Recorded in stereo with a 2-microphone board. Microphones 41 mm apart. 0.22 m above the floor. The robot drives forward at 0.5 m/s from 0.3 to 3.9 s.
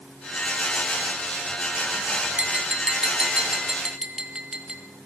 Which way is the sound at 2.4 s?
25° right (ahead or behind).